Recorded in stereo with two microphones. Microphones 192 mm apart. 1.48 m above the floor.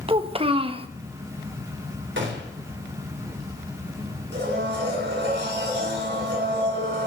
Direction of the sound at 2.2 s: 80° right.